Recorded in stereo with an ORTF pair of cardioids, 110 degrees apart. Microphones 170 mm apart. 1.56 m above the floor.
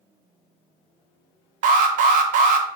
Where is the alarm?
60° right, 0.7 m.